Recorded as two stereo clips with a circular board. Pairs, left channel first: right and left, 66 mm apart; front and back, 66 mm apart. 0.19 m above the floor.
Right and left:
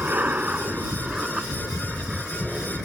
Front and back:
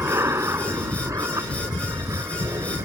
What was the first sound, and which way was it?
An aircraft, 145° left.